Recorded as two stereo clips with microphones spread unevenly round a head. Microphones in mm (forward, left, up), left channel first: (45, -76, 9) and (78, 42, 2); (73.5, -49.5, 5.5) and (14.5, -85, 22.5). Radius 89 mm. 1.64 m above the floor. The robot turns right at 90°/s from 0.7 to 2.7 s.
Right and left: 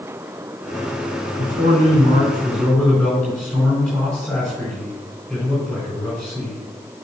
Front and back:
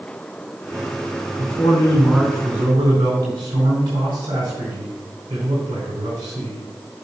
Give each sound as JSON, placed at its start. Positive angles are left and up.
{"t": 1.4, "sound": "a man speaking", "azimuth_deg": 50, "distance_m": 4.0}